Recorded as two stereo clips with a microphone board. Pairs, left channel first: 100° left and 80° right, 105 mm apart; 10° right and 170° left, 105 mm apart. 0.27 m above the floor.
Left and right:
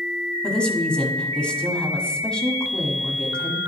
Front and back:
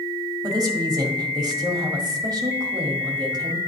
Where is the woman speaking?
175° left, 1.6 m.